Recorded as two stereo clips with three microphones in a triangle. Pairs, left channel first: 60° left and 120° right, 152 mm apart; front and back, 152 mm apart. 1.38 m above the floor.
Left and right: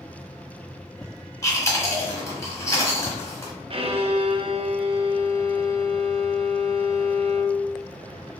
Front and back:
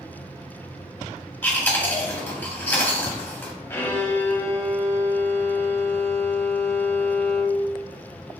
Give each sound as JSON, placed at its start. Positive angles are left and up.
{"t": 1.4, "sound": "chewing", "azimuth_deg": 50, "distance_m": 1.3}
{"t": 3.7, "sound": "a violin", "azimuth_deg": -70, "distance_m": 0.6}